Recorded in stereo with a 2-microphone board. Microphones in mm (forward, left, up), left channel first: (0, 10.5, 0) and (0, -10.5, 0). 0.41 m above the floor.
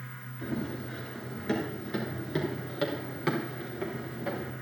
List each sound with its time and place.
0.4 s running footsteps: 25° left (ahead or behind), 6.5 m; by 4.5 s 30° right (ahead or behind), 4.5 m